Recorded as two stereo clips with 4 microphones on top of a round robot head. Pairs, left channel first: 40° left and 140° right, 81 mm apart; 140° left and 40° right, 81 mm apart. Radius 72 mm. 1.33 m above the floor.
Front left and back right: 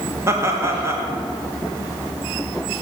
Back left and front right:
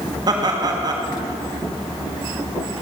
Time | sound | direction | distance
0.3 | laughter | 80° right | 1.7 m